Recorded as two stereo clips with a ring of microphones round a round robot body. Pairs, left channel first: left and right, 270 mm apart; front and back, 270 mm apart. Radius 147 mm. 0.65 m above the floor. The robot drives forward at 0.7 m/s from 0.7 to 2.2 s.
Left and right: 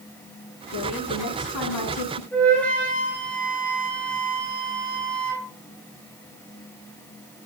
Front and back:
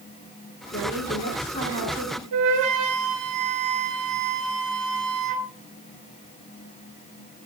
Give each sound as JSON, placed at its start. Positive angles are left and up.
{"t": 0.7, "sound": "a woman speaking", "azimuth_deg": 65, "distance_m": 7.5}
{"t": 2.3, "sound": "a flute", "azimuth_deg": 175, "distance_m": 4.0}